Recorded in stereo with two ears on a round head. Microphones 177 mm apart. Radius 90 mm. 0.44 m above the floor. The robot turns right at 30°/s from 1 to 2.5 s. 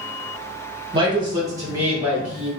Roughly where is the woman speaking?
Ahead right.